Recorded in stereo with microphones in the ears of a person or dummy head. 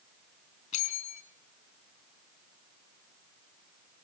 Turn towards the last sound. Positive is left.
turn(degrees=45)  # may be behind; listen again after turning